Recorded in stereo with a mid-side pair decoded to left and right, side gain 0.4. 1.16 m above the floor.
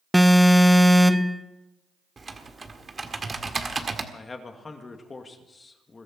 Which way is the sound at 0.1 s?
Straight ahead.